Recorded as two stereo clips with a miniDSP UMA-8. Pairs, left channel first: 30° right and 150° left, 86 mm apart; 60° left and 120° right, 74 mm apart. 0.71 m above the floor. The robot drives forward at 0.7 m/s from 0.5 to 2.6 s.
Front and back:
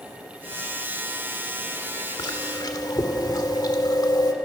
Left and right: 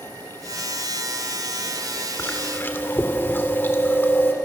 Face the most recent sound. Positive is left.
turn(degrees=0)